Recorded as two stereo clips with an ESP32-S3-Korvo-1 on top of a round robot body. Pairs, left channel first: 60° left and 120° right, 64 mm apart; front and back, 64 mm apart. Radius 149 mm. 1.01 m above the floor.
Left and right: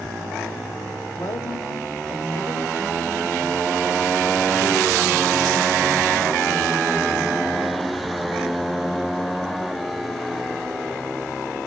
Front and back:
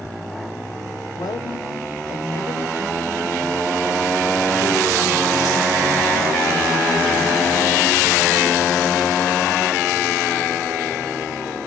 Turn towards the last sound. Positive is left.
turn(degrees=35)